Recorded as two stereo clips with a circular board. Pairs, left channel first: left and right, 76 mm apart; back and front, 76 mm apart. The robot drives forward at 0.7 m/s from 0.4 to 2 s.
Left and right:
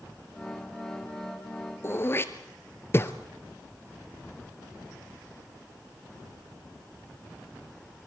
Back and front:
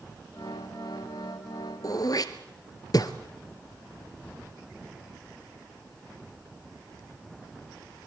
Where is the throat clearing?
145° left, 1.3 m.